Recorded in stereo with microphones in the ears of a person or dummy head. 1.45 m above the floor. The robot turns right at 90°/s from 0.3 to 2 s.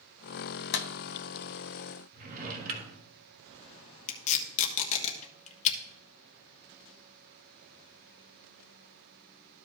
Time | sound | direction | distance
0.7 | a clap | 60° left (ahead or behind) | 0.6 m
2.1 | a drawer | 45° right (ahead or behind) | 1.5 m
4.1 | tape being pulled | 45° left (ahead or behind) | 1.3 m